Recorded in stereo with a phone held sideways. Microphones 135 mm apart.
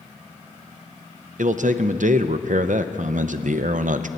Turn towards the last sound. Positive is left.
turn(degrees=-70)  # may be behind; listen again after turning